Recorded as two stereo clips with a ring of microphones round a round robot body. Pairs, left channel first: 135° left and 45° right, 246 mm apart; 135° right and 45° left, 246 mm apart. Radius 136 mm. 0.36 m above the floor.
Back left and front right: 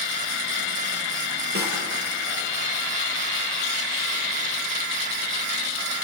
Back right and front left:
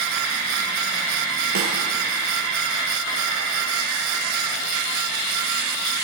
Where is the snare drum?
5° left, 5.5 m.